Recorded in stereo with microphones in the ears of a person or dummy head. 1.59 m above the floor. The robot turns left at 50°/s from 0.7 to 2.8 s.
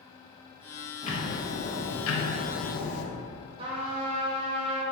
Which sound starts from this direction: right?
A trumpet, at 3.6 s.